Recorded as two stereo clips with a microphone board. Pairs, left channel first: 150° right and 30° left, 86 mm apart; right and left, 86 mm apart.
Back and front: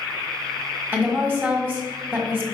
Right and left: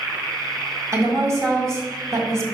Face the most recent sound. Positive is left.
turn(degrees=85)